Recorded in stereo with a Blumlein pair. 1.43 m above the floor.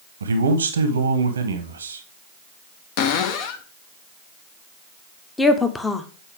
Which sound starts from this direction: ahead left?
A cupboard door, at 3.0 s.